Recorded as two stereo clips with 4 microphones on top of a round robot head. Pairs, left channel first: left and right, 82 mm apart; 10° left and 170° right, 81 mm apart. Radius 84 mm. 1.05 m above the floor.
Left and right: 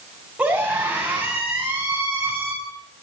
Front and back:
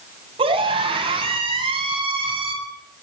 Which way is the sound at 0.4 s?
170° right.